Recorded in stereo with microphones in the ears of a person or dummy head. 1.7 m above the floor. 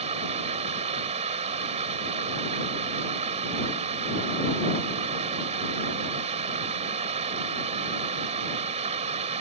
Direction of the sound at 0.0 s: 40° right (ahead or behind).